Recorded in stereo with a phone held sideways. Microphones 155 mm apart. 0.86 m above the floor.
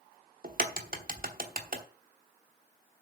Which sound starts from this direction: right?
A crack, at 0.4 s.